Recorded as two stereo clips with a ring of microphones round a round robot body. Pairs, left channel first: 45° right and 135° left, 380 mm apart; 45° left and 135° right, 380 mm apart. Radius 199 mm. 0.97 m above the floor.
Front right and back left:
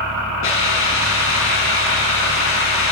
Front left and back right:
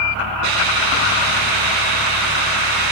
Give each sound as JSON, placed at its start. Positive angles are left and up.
{"t": 0.4, "sound": "a hiss", "azimuth_deg": -105, "distance_m": 4.5}